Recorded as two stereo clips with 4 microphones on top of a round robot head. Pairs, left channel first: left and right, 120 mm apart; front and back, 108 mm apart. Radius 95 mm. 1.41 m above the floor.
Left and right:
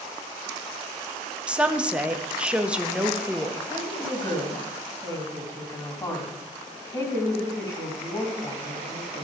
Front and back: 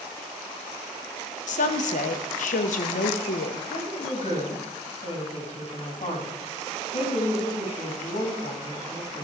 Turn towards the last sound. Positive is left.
turn(degrees=35)